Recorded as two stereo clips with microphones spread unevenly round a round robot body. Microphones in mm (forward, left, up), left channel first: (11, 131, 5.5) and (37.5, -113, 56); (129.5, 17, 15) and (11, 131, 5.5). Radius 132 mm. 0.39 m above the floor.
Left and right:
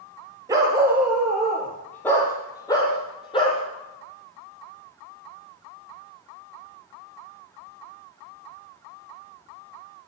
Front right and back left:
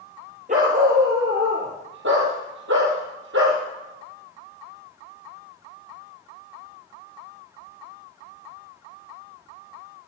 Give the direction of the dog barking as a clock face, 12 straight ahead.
5 o'clock.